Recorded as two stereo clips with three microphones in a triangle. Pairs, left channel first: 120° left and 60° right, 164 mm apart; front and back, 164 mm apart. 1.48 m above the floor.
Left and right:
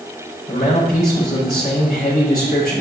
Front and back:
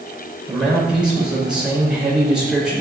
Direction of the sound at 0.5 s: 95° left.